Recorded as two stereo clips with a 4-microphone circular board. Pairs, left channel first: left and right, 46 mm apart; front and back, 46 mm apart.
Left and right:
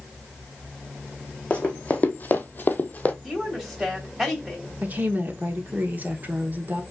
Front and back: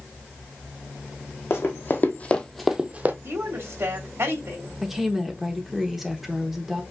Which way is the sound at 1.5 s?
25° left.